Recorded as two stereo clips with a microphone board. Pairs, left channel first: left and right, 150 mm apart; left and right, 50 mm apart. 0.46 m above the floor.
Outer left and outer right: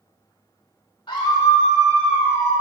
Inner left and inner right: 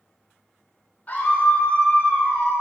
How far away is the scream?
About 2.0 m.